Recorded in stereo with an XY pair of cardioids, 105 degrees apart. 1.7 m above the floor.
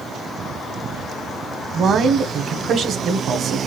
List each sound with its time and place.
1.7 s a man speaking: 55° right, 1.0 m